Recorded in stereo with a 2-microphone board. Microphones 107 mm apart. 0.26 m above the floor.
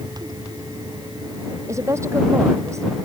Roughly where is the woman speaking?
Right.